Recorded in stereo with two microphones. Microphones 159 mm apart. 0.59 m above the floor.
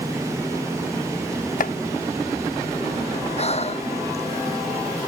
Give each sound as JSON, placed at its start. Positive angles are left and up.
{"t": 1.6, "sound": "chopping", "side_deg": 60}
{"t": 3.4, "sound": "breathing", "side_deg": 40}